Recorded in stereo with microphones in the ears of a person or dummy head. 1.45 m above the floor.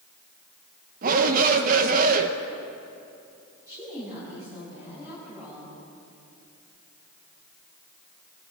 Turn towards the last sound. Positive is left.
turn(degrees=-20)  # may be behind; listen again after turning